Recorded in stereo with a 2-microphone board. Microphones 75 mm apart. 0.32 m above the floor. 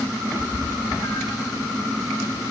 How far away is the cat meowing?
About 5.5 m.